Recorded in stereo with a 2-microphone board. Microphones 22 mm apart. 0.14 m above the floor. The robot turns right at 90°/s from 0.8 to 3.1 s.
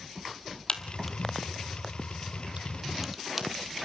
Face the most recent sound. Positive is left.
turn(degrees=-5)  # may be behind; listen again after turning